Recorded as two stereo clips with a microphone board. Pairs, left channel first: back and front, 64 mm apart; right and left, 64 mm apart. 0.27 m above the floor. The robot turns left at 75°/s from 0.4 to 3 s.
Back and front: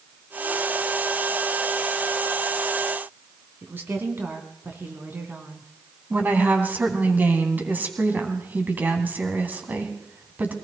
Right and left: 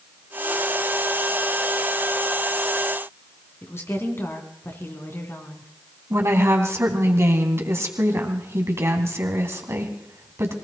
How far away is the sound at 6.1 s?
About 2.5 m.